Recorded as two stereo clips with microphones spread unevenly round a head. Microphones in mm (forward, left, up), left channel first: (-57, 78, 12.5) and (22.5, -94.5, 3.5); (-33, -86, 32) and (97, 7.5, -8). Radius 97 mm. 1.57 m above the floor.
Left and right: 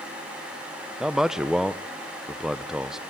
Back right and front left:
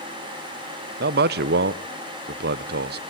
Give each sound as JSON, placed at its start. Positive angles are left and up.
{"t": 1.0, "sound": "a man speaking", "azimuth_deg": 25, "distance_m": 0.6}